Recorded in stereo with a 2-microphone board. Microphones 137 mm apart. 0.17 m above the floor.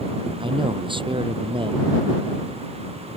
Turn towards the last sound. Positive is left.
turn(degrees=-35)  # may be behind; listen again after turning